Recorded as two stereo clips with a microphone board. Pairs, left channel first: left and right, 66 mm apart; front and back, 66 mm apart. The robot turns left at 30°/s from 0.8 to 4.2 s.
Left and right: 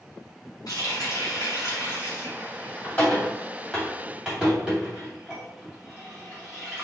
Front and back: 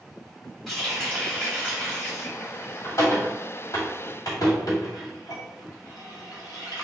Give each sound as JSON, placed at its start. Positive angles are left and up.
{"t": 0.7, "sound": "a running tap", "azimuth_deg": 90, "distance_m": 2.0}